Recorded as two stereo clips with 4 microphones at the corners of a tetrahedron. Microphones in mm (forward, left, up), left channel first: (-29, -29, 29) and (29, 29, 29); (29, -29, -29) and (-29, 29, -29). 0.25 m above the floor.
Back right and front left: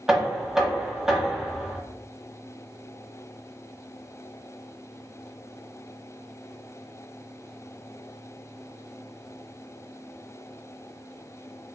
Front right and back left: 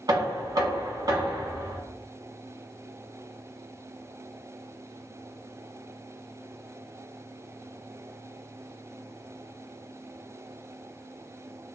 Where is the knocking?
125° left, 1.1 m.